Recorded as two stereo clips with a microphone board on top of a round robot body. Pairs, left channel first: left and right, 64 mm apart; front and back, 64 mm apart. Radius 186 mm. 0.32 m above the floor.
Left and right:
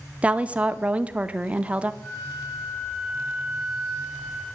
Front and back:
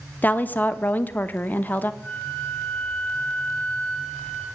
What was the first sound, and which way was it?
A woman speaking, 35° right.